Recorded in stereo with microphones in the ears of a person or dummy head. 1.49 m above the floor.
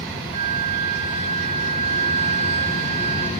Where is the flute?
45° right (ahead or behind), 1.1 m.